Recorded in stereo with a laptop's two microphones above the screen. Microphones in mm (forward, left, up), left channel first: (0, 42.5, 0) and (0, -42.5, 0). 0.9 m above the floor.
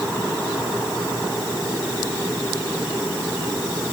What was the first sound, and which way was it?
Only background noise.